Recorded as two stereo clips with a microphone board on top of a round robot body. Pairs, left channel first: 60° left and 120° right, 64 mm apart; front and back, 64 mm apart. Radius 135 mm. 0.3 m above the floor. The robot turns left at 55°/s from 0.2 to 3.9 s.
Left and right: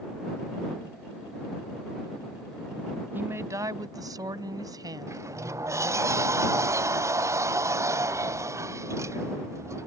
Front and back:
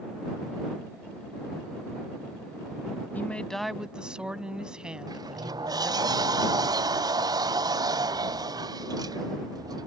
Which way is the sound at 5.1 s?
165° right.